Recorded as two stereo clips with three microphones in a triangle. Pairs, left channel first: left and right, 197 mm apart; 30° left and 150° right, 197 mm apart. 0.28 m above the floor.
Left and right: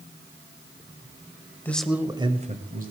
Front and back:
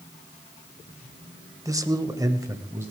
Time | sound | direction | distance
1.6 | a man speaking | 160° left | 1.2 m